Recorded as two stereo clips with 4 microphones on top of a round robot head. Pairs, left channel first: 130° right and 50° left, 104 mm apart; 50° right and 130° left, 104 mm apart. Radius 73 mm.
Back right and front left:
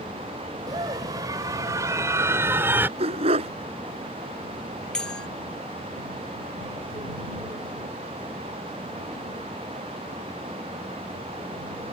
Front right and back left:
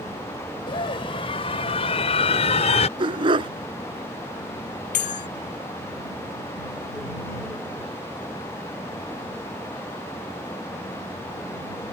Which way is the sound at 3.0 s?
85° left.